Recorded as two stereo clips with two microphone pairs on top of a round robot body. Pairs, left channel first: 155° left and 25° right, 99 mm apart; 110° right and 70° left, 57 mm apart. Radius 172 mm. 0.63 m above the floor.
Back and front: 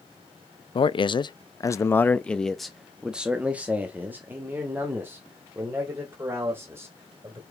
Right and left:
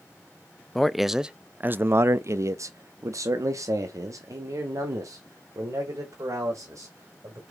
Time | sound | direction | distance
0.8 | a man speaking | 165° left | 0.8 m